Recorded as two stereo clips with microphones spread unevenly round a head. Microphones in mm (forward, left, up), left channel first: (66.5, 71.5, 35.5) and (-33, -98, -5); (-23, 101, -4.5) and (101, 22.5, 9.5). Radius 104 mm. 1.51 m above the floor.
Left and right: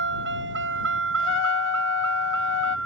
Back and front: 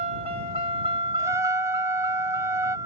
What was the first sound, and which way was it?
A vehicle, 90° right.